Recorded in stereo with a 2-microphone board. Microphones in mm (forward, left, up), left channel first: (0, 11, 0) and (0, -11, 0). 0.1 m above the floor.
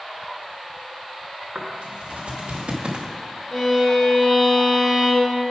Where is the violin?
10° left (ahead or behind), 1.6 m.